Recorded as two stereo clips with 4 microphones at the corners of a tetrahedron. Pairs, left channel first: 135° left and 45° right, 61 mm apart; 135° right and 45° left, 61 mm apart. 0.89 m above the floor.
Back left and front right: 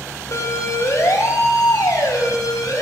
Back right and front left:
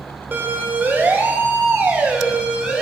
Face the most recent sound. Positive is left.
turn(degrees=120)